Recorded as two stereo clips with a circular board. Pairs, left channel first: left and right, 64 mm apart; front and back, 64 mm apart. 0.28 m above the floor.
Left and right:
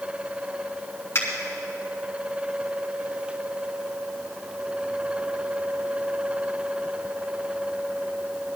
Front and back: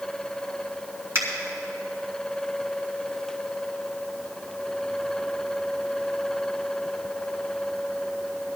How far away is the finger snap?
About 3 m.